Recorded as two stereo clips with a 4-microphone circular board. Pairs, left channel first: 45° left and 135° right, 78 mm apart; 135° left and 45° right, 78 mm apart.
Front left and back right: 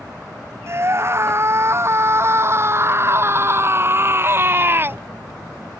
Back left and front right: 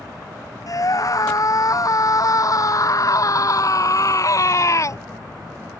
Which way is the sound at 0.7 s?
175° left.